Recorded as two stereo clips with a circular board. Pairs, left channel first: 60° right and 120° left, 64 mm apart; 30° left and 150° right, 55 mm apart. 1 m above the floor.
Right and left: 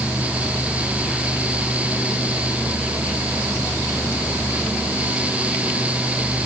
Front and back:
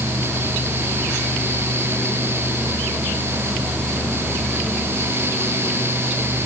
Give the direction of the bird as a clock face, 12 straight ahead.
I don't hear a bird.